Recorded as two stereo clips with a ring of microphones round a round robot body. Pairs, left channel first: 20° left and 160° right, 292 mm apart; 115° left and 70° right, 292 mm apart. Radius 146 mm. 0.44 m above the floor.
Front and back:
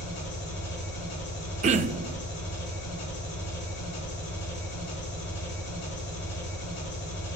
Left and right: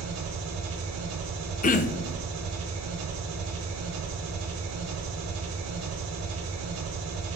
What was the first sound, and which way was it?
An engine running, 30° right.